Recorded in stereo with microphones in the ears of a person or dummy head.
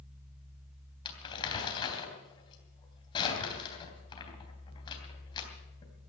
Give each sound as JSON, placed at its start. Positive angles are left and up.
{"t": 1.1, "sound": "crumpling", "side_deg": 30, "distance_m": 3.0}